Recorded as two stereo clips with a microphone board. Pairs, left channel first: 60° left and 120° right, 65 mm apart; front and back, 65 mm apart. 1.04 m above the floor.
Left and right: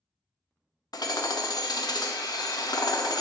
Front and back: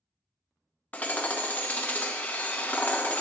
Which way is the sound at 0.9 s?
65° left.